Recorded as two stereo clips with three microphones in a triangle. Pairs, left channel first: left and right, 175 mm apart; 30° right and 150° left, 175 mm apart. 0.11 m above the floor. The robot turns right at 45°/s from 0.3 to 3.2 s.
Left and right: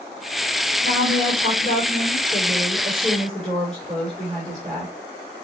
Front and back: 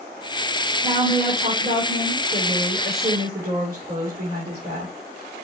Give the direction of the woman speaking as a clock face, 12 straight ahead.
10 o'clock.